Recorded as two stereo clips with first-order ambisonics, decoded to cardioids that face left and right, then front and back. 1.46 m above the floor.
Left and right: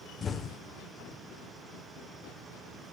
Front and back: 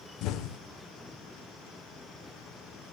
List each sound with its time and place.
0.2 s an explosion: 25° left, 1.1 m